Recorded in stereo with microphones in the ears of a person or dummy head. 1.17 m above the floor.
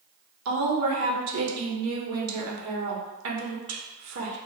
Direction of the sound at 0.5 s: 70° right (ahead or behind).